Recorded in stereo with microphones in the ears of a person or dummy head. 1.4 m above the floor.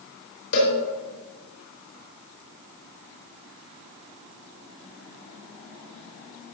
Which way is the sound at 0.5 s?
75° left (ahead or behind).